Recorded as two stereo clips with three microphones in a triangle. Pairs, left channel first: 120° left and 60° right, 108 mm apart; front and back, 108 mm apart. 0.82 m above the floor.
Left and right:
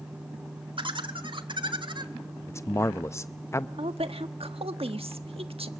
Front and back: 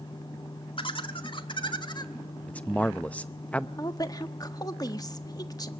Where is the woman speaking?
50° right, 1.3 m.